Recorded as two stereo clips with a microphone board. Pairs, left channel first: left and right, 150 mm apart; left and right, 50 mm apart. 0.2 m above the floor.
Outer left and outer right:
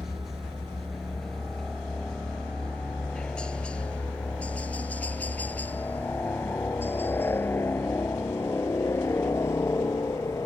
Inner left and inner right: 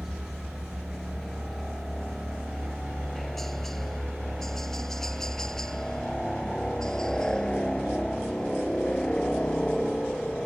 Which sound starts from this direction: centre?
A helicopter, at 0.0 s.